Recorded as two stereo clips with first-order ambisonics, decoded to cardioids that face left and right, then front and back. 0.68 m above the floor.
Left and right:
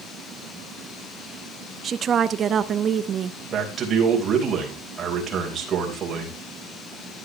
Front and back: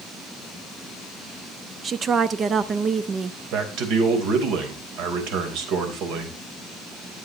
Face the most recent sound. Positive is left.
turn(degrees=-155)